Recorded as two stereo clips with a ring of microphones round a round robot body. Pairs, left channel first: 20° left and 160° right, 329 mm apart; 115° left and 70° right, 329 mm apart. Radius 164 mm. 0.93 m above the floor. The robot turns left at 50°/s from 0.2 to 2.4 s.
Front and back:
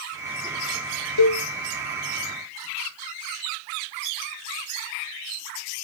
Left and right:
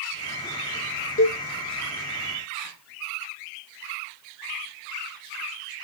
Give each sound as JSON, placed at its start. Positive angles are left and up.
{"t": 1.2, "sound": "a cowbell", "azimuth_deg": 50, "distance_m": 0.5}